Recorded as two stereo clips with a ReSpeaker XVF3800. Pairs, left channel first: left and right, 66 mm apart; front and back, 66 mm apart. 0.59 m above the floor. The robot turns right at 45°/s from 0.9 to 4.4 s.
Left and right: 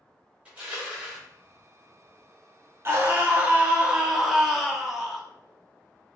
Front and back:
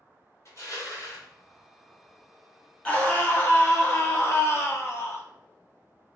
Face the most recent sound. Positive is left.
turn(degrees=5)